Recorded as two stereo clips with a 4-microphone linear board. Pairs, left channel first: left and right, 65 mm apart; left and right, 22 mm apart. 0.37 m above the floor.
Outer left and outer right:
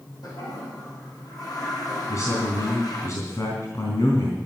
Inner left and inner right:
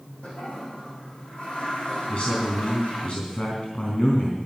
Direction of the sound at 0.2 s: 75° left (ahead or behind).